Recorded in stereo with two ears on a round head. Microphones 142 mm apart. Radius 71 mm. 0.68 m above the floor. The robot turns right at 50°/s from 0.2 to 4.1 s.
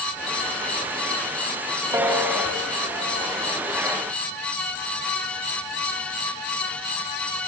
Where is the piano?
15° right (ahead or behind), 4 m; by 3.3 s 50° left (ahead or behind), 4 m.